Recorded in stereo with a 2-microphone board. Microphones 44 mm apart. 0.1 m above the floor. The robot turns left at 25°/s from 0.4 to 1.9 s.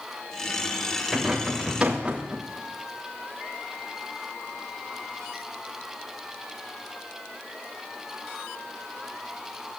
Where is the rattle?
Centre (ahead or behind), 3 m; by 2.4 s 20° right (ahead or behind), 3 m.